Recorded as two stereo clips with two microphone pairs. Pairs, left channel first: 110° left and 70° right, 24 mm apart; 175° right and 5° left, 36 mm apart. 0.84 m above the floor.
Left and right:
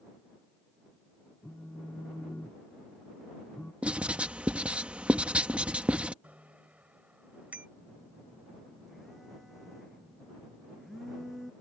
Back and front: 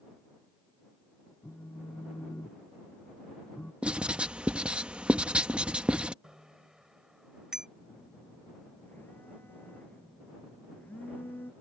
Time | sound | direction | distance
1.4 | a phone buzzing | 165° left | ?
3.8 | writing | 50° right | ?
6.2 | a bicycle bell | 65° right | ?
7.8 | a phone buzzing | 155° right | ?